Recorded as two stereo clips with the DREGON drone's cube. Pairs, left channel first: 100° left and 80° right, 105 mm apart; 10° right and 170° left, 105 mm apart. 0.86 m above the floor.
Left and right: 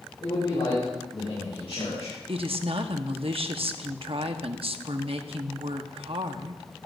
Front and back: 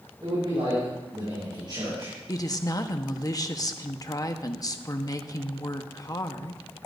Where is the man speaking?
135° left, 6.5 m; by 2.1 s 120° left, 7 m.